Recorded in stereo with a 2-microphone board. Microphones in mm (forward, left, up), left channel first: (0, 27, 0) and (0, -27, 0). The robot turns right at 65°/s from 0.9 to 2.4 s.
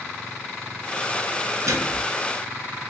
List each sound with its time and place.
1.7 s a microwave: 75° right (ahead or behind), 2.5 m; by 2.1 s 55° right (ahead or behind), 2.5 m